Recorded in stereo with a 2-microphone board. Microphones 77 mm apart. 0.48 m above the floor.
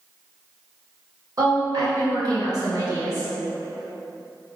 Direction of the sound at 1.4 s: 50° right (ahead or behind).